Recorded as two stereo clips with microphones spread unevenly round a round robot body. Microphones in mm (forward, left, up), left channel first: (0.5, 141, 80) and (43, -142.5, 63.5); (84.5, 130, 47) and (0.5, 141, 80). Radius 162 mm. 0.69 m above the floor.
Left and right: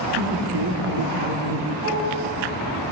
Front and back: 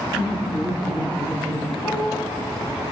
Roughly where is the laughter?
Behind right.